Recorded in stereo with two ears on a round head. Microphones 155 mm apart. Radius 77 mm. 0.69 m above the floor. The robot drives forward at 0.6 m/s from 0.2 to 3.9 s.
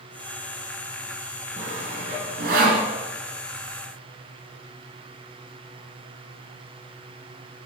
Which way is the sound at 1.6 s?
45° right (ahead or behind).